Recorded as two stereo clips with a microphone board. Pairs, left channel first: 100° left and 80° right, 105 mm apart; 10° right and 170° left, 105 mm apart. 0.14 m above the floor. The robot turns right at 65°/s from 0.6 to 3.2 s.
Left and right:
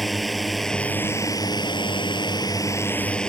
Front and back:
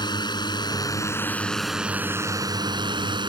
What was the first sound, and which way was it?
A drone, 10° left.